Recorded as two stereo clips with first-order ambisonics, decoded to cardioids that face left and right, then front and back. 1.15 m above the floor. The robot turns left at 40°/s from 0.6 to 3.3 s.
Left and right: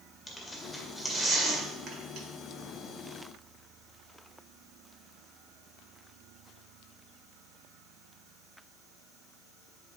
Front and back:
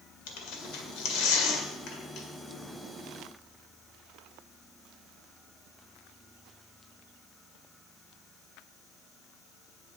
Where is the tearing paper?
10° left, 1.8 m; by 2.3 s 55° right, 1.8 m.